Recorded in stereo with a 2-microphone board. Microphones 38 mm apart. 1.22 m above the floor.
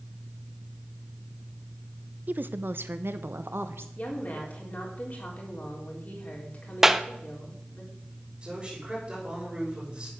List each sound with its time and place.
2.3 s a woman speaking: 45° right (ahead or behind), 0.5 m; by 3.9 s 75° right (ahead or behind), 1.3 m
4.0 s a woman speaking: 45° left (ahead or behind), 4 m
6.8 s a clap: 10° right (ahead or behind), 0.6 m
8.4 s a man speaking: 25° right (ahead or behind), 6.5 m